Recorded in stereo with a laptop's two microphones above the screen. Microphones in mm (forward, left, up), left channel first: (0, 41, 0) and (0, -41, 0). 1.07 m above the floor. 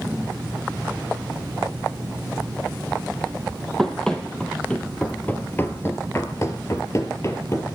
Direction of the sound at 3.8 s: 10° left (ahead or behind).